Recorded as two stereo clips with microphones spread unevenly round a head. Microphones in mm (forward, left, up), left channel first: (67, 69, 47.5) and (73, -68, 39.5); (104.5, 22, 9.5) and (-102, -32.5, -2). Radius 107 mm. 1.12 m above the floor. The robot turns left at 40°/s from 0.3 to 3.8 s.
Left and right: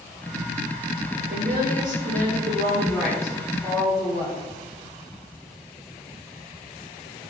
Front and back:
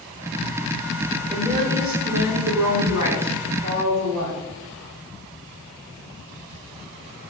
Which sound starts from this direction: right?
A woman speaking, at 1.3 s.